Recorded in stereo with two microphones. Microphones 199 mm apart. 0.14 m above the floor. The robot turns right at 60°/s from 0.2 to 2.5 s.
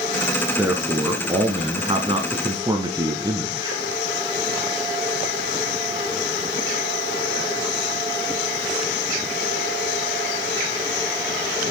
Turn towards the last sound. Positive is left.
turn(degrees=-20)  # may be behind; listen again after turning